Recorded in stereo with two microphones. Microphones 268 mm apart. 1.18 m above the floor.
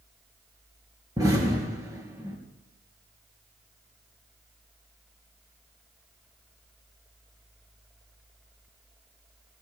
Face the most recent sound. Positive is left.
turn(degrees=-15)  # may be behind; listen again after turning